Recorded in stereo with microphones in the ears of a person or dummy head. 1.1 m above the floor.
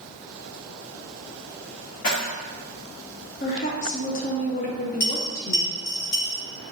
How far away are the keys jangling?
About 1.0 m.